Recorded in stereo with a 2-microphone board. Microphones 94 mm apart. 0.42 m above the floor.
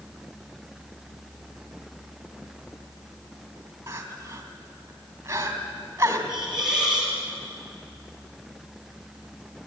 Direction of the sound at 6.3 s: 5° right (ahead or behind).